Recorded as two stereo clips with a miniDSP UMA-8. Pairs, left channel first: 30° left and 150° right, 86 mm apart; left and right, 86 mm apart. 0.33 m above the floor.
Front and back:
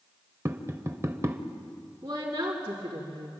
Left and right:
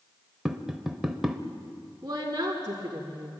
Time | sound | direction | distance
0.5 | tapping | 170° right | 1.0 m
2.0 | a woman speaking | 140° right | 3.5 m